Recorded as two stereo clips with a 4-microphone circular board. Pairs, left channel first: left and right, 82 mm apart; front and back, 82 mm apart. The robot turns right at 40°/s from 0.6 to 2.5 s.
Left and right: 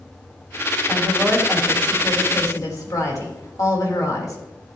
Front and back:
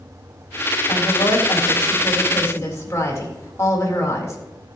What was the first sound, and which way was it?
A woman speaking, 15° right.